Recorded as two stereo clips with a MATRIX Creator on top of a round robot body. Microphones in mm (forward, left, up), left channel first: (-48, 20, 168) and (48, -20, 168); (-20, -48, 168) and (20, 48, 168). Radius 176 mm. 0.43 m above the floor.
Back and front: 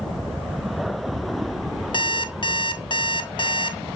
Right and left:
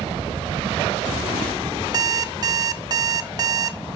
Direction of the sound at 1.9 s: 120° left.